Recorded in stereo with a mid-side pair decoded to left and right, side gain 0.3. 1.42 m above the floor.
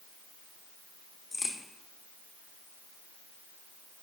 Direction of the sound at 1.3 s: 45° left.